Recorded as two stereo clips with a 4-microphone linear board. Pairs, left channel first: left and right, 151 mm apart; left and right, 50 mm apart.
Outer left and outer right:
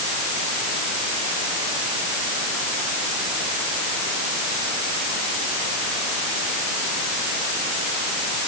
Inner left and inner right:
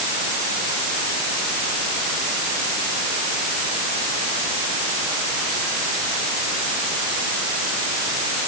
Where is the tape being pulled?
I don't hear tape being pulled.